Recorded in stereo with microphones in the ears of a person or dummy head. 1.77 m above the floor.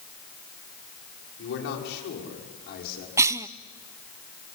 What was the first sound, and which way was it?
A man speaking, 70° left (ahead or behind).